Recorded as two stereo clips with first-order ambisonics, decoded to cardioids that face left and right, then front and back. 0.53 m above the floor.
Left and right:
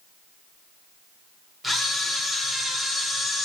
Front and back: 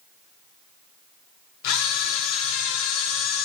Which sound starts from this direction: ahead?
A camera shutter, at 1.6 s.